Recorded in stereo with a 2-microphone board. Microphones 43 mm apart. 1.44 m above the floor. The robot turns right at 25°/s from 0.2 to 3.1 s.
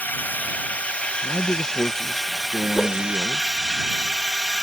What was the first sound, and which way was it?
A drone, 125° left.